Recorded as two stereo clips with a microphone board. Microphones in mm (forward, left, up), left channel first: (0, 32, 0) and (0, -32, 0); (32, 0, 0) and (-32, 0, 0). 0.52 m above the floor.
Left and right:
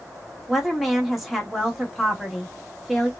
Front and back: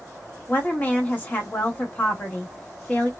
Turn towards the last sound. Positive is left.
turn(degrees=-5)